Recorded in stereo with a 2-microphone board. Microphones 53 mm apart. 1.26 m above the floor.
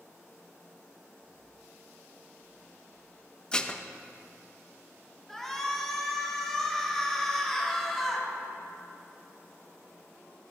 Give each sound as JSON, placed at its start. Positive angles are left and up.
{"t": 3.5, "sound": "dishes clattering", "side_deg": 20, "distance_m": 0.6}
{"t": 5.3, "sound": "a shout", "side_deg": 10, "distance_m": 2.0}